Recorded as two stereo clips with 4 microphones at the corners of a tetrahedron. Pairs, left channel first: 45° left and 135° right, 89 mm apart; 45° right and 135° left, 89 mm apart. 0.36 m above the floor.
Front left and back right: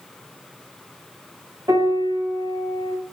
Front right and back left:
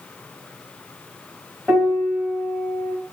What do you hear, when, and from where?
1.7 s a piano: 155° right, 0.9 m